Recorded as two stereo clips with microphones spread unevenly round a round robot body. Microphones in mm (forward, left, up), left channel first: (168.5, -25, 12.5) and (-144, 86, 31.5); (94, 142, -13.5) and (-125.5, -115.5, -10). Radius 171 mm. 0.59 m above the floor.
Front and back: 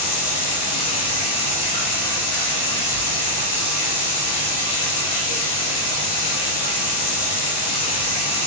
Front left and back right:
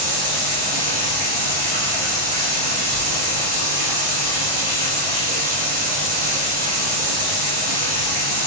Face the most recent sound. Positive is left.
turn(degrees=-65)